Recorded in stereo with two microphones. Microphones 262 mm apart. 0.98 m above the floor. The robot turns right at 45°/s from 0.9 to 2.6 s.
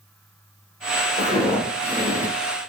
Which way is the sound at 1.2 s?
30° left (ahead or behind).